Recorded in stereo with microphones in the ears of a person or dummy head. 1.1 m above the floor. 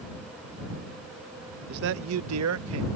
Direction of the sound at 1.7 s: 50° right (ahead or behind).